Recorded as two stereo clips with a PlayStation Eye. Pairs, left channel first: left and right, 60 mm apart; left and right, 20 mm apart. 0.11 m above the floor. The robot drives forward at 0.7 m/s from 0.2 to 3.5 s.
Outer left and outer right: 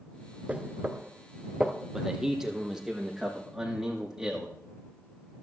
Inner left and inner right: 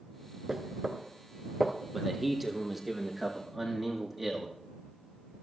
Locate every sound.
0.5 s knocking: 25° right (ahead or behind), 0.8 m; by 1.7 s 15° right (ahead or behind), 1.2 m
1.9 s a man speaking: 10° right (ahead or behind), 3.5 m; by 4.5 s 5° right (ahead or behind), 4.5 m